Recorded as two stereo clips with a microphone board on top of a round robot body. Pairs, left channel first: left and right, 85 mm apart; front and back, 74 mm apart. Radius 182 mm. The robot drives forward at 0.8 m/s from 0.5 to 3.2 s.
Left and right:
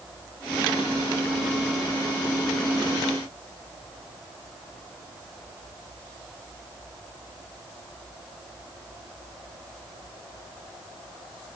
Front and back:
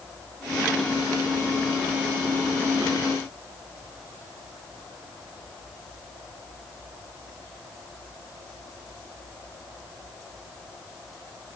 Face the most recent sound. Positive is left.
No sound to turn to.